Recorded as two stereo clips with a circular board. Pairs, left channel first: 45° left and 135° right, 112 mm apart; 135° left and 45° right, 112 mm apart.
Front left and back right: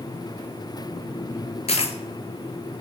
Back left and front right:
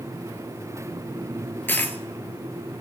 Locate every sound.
1.7 s a dropped coin: 65° left, 0.7 m